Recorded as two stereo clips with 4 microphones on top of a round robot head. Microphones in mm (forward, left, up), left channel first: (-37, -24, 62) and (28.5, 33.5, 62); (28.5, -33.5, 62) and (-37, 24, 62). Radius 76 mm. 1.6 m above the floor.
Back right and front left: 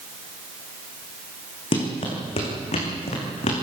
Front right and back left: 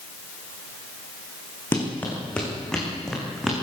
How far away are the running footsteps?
About 5 m.